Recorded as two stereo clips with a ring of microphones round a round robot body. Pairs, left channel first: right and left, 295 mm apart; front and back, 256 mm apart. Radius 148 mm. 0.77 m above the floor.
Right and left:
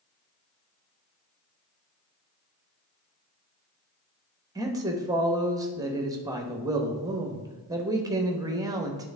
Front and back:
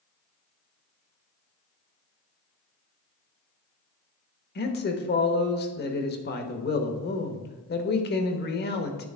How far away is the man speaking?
About 1.0 m.